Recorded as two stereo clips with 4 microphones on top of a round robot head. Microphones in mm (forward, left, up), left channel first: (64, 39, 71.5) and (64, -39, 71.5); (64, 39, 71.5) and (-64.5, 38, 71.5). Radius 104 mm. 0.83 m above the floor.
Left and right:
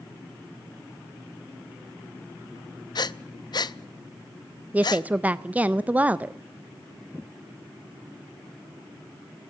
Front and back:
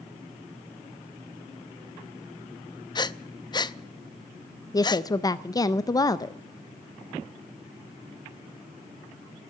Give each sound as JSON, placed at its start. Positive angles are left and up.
{"t": 3.0, "sound": "breathing", "azimuth_deg": 60, "distance_m": 0.6}
{"t": 4.7, "sound": "a woman speaking", "azimuth_deg": -35, "distance_m": 0.6}